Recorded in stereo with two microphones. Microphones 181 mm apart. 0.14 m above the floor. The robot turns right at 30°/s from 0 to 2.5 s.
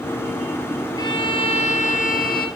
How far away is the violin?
About 1.5 m.